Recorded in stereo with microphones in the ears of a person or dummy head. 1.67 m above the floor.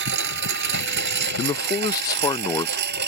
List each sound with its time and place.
0.0 s a lawn mower: 70° right (ahead or behind); by 3.1 s 65° right (ahead or behind)
1.4 s a man speaking: 25° left (ahead or behind)